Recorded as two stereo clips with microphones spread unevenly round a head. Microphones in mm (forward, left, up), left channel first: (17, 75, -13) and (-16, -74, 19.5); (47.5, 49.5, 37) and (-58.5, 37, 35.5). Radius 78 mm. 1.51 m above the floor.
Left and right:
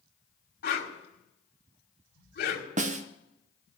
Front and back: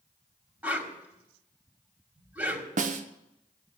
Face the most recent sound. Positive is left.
turn(degrees=-150)